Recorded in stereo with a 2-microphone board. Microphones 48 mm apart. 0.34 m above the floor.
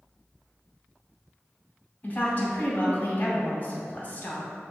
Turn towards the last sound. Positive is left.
turn(degrees=35)  # may be behind; listen again after turning